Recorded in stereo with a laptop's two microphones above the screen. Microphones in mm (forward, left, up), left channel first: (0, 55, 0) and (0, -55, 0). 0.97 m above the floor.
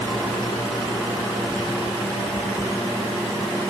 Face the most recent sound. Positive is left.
No sound to turn to.